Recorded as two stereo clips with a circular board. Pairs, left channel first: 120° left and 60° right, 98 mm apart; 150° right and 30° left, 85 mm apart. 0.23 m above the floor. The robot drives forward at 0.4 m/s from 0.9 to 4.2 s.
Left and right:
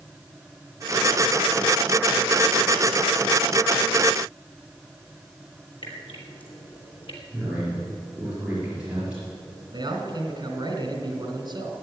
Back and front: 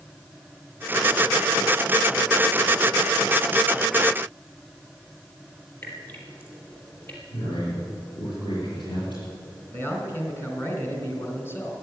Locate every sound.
5.8 s dripping: 145° left, 3 m
7.3 s a man speaking: 135° right, 5 m
9.7 s a man speaking: 95° right, 2.5 m